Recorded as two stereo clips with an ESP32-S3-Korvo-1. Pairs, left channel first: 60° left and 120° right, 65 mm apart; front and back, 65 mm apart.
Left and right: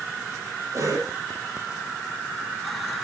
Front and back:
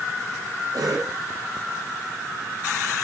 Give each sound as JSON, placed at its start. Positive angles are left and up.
{"t": 0.7, "sound": "a cough", "azimuth_deg": -160, "distance_m": 7.0}